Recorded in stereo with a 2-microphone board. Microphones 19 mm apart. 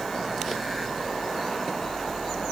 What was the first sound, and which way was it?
Only background noise.